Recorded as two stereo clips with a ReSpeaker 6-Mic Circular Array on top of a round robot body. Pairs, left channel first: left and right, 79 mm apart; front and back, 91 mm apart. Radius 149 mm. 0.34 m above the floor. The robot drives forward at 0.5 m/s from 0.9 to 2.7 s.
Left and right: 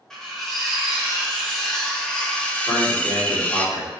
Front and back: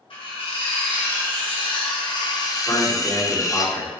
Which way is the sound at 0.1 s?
5° left.